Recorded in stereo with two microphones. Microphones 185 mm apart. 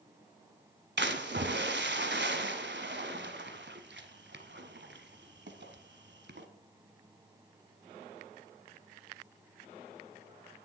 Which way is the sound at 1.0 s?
80° right.